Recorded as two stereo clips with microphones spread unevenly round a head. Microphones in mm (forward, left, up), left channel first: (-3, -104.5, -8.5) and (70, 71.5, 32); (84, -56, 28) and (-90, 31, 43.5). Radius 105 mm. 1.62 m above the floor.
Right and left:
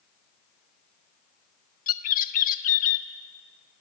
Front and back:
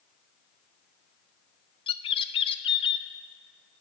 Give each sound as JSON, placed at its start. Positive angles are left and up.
{"t": 1.9, "sound": "a bird", "azimuth_deg": -80, "distance_m": 1.0}